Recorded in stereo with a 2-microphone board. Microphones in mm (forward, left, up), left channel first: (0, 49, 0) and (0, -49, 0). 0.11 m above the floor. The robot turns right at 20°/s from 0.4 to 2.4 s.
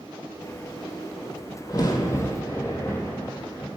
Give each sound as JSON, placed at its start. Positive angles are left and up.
{"t": 1.7, "sound": "a crack", "side_deg": 40, "distance_m": 1.3}